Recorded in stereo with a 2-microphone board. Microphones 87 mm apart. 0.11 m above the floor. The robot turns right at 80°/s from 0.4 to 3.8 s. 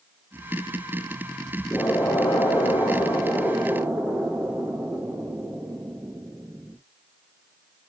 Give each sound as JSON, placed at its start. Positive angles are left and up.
{"t": 1.7, "sound": "an explosion", "azimuth_deg": 30, "distance_m": 2.0}